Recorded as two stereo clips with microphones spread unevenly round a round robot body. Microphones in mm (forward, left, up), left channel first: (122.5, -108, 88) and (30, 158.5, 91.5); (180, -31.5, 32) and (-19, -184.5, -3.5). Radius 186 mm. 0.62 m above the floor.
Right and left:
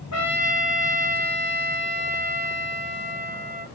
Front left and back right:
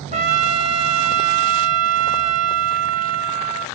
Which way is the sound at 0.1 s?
90° right.